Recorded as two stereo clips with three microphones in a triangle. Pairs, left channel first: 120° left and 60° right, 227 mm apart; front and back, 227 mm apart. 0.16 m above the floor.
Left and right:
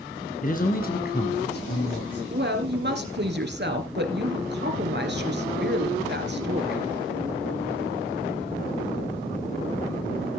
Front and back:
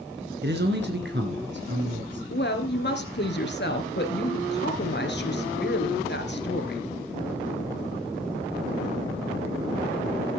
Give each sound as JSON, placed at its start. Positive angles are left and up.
{"t": 0.4, "sound": "a man speaking", "azimuth_deg": 160, "distance_m": 2.0}
{"t": 2.3, "sound": "a woman speaking", "azimuth_deg": -30, "distance_m": 2.5}